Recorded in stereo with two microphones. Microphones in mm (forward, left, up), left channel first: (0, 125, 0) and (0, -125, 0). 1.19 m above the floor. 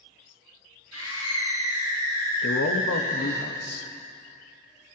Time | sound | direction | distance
0.9 | a scream | 80° right | 7.5 m
2.4 | a man speaking | 75° left (ahead or behind) | 1.2 m